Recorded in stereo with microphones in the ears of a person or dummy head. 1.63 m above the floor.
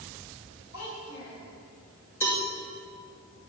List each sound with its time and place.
0.7 s a child speaking: 60° left (ahead or behind), 5 m
2.2 s a cowbell: 15° left (ahead or behind), 2 m